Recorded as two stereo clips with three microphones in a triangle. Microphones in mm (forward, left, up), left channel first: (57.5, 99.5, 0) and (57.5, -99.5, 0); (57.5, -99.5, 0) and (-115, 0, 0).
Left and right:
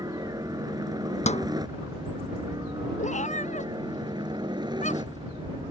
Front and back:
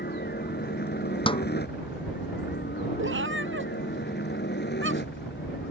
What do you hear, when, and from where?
0.0 s a helicopter: 25° right
1.3 s a snare drum: 35° left
3.0 s a cat meowing: 140° left